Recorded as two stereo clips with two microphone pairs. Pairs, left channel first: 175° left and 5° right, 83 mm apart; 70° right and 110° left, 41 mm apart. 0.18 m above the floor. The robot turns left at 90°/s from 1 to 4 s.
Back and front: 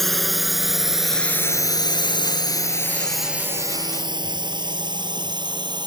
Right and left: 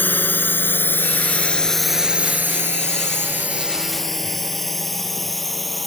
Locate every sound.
0.0 s a drone: 100° right; by 5.9 s 15° left